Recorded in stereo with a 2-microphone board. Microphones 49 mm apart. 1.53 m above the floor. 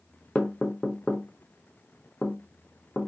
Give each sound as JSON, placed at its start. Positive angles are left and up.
{"t": 0.3, "sound": "knocking", "side_deg": 20, "distance_m": 0.7}